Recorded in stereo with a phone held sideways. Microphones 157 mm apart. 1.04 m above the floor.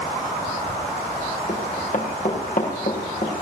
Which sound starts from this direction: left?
Running footsteps, at 1.5 s.